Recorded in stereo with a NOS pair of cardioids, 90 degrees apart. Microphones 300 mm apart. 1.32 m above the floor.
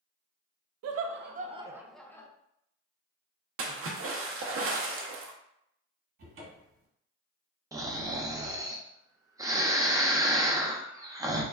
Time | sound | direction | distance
0.8 | laughter | 60° right | 0.6 m
3.6 | a splash | 45° right | 0.7 m
6.2 | a cupboard door | 45° right | 1.4 m
7.7 | snoring | 10° right | 0.5 m